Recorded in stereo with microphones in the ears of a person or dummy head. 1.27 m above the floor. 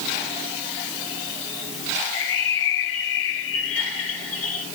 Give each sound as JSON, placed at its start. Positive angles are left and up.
{"t": 2.1, "sound": "a bird", "side_deg": 70, "distance_m": 1.5}